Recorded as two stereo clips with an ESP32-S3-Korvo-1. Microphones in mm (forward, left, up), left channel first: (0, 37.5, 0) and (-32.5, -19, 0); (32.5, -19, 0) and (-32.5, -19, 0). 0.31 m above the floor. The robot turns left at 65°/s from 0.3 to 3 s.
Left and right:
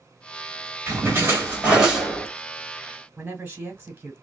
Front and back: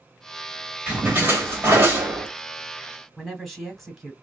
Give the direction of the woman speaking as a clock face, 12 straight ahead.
3 o'clock.